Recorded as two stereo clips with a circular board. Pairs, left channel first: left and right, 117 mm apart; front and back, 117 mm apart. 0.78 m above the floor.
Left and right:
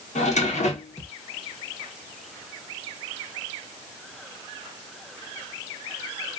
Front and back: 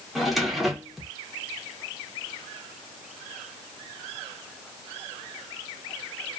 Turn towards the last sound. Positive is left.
turn(degrees=90)